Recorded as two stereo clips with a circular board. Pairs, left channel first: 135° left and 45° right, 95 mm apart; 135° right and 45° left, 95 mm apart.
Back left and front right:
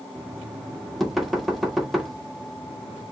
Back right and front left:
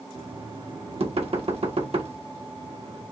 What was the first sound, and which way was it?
Knocking, 45° left.